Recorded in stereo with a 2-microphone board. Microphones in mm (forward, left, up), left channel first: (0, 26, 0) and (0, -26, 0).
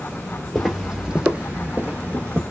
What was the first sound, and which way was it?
Footsteps, 5° left (ahead or behind).